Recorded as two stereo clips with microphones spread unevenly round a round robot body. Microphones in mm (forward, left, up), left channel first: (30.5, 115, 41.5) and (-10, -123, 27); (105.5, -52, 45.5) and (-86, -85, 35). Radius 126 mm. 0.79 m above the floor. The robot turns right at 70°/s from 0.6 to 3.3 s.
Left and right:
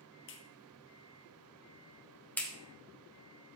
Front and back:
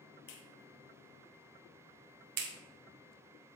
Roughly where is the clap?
Ahead left.